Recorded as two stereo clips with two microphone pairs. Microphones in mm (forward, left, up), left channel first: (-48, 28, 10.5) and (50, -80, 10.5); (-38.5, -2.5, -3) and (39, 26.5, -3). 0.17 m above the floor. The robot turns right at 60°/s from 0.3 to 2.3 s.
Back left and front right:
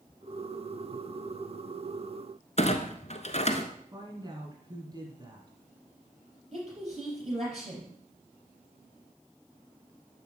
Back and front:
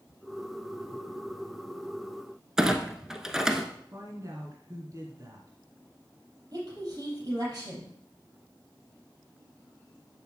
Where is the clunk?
105° left, 1.0 m.